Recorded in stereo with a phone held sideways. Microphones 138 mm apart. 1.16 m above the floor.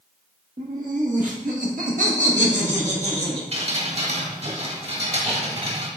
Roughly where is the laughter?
Right.